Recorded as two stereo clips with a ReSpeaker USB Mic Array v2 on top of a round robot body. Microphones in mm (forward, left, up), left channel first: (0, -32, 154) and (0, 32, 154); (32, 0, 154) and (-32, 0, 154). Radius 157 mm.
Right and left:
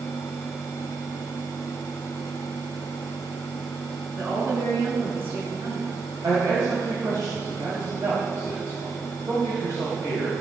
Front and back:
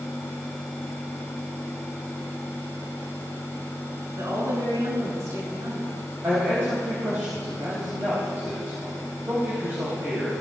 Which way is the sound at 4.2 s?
145° left.